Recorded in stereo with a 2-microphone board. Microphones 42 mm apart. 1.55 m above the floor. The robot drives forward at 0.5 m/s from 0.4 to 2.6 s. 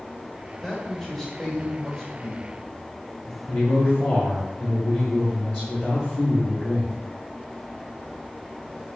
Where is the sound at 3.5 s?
55° left (ahead or behind), 1.4 m.